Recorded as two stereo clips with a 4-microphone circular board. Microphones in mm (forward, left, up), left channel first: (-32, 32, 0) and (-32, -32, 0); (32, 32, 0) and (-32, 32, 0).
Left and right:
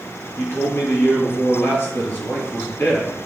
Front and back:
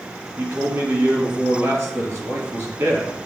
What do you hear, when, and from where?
0.4 s a man speaking: 140° left, 3 m